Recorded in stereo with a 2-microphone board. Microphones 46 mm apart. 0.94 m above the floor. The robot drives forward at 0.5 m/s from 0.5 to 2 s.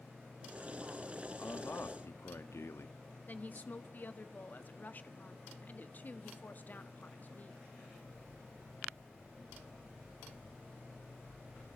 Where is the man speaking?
75° left (ahead or behind), 1.7 m; by 3.0 s 70° left (ahead or behind), 1.7 m.